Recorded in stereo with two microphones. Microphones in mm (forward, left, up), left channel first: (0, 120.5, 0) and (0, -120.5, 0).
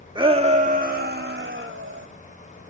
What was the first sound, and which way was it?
A shout, 20° right (ahead or behind).